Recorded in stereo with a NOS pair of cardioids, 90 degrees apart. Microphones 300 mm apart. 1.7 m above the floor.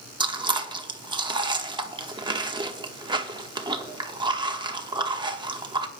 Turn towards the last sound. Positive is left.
turn(degrees=-15)